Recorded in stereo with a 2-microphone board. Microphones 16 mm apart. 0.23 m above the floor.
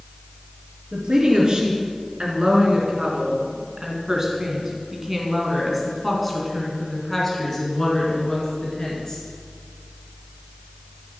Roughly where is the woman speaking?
Right.